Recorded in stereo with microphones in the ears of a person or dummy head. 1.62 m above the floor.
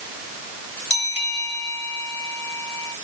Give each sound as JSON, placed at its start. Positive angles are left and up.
{"t": 0.9, "sound": "a bell", "side_deg": 45, "distance_m": 4.5}